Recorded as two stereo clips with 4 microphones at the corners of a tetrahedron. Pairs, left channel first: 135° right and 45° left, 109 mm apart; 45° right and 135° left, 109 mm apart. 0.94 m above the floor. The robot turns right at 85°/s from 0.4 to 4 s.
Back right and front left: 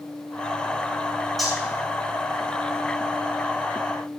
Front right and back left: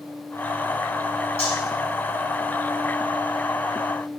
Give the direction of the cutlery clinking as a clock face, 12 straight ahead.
2 o'clock.